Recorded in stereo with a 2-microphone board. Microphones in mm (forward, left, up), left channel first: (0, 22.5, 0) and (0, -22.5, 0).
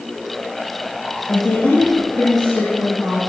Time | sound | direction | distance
1.3 | a woman speaking | 75° left (ahead or behind) | 5.5 m